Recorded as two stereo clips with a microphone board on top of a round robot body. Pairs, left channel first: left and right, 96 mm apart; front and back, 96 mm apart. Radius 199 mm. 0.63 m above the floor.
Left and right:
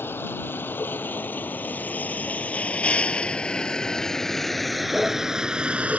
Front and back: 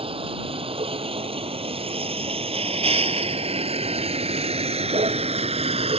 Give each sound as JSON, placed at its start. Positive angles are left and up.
{"t": 0.0, "sound": "a vehicle", "azimuth_deg": 160}